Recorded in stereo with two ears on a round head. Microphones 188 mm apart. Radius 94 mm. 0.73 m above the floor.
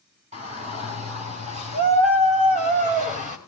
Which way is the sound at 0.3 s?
30° right (ahead or behind).